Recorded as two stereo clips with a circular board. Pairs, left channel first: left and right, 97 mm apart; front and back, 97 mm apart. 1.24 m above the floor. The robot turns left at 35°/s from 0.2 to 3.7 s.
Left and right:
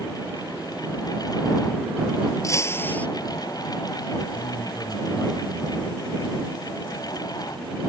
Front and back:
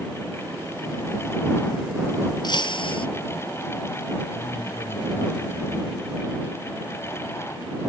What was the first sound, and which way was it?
Breaking glass, 35° left.